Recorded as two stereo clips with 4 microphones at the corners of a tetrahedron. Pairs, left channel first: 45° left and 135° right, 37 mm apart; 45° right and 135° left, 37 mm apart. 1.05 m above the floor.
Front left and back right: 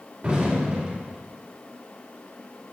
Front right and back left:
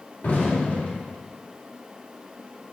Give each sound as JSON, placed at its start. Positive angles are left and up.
{"t": 0.2, "sound": "an explosion", "azimuth_deg": -75, "distance_m": 2.0}